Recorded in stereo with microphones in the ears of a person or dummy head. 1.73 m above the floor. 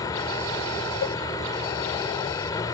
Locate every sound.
0.0 s a vehicle: 30° left (ahead or behind)
1.0 s a cowbell: 55° left (ahead or behind)